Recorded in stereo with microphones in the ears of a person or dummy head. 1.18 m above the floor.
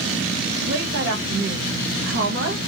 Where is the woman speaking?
65° right (ahead or behind), 1.3 m.